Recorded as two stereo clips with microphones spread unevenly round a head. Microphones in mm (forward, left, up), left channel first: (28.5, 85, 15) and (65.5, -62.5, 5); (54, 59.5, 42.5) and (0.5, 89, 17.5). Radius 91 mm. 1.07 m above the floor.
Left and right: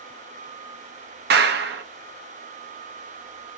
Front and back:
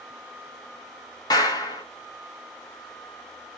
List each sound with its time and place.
1.3 s a clap: 80° right, 1.0 m